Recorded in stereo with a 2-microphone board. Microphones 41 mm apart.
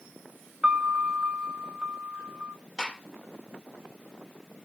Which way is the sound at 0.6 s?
20° right (ahead or behind).